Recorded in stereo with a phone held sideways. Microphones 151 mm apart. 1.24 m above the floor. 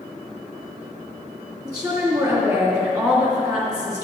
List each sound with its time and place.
1.6 s a woman speaking: 25° right (ahead or behind), 2.5 m